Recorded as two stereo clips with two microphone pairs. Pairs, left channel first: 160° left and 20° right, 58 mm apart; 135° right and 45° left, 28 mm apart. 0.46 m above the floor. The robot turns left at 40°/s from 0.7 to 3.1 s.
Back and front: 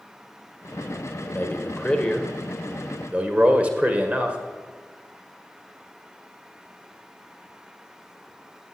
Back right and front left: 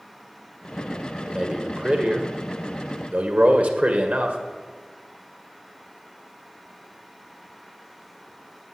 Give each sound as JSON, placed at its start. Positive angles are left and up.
{"t": 1.3, "sound": "a man speaking", "azimuth_deg": 110, "distance_m": 1.8}